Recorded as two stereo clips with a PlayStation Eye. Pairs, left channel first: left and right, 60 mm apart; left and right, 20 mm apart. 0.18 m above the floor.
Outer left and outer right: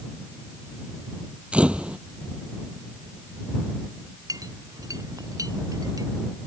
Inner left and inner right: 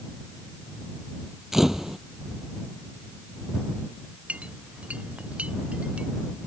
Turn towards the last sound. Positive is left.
turn(degrees=-85)